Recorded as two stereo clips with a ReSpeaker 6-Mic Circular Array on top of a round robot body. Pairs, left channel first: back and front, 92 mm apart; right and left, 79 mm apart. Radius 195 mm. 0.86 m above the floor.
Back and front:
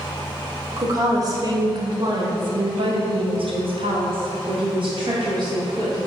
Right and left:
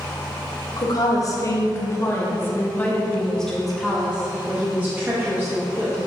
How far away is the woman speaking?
About 2.0 m.